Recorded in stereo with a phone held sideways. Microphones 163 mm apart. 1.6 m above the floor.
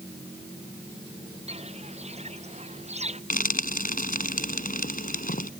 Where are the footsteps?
40° right (ahead or behind).